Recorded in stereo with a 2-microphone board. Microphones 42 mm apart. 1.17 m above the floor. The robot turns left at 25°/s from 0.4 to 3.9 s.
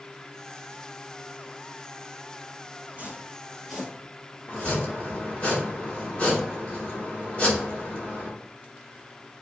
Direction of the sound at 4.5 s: 30° left (ahead or behind).